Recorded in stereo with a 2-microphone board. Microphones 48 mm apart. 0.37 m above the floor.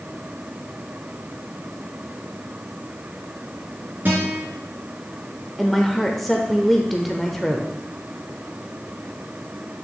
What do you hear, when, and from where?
4.0 s a guitar: 45° right (ahead or behind), 3.5 m
5.6 s a woman speaking: centre (ahead or behind), 0.8 m